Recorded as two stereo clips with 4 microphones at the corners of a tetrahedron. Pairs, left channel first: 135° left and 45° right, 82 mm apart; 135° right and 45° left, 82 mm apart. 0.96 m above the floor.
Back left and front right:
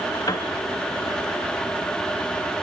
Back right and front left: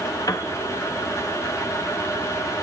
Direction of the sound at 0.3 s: Straight behind.